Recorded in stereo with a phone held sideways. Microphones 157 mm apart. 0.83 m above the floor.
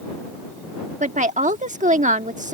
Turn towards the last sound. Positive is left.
turn(degrees=-50)  # may be behind; listen again after turning